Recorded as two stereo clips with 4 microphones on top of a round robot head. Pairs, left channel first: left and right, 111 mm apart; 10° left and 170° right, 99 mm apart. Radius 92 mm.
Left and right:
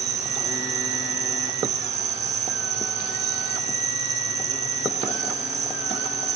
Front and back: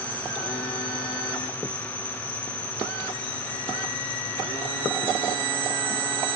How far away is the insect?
About 0.9 m.